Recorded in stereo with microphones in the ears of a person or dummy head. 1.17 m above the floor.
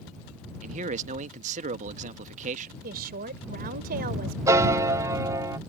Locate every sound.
0.6 s a man speaking: 35° right (ahead or behind)
2.8 s a woman speaking: 50° right (ahead or behind)
4.5 s a piano: 10° right (ahead or behind)